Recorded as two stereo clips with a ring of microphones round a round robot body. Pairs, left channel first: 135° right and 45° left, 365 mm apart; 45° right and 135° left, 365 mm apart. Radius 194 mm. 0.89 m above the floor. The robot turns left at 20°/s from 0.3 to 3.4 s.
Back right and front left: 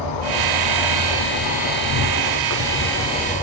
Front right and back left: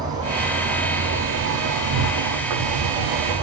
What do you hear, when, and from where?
0.0 s an insect: 145° right, 4.5 m; by 3.4 s 155° left, 4.5 m